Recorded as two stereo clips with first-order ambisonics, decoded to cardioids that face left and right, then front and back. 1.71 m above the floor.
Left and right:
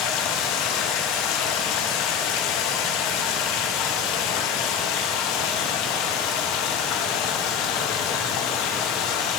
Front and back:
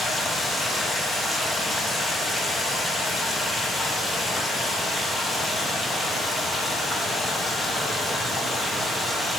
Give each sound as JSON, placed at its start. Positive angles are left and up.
{"t": 0.0, "sound": "running water", "azimuth_deg": 80, "distance_m": 1.0}